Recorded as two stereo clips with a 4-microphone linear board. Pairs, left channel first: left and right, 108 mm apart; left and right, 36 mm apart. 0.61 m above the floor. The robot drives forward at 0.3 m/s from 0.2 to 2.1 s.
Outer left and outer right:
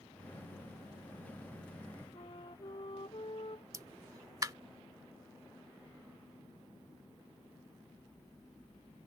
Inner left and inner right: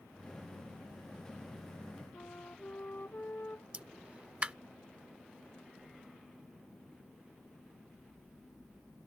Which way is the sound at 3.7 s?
30° right (ahead or behind).